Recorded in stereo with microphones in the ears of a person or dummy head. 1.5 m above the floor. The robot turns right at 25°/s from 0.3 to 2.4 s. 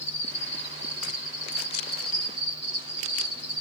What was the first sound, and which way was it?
An insect, 135° left.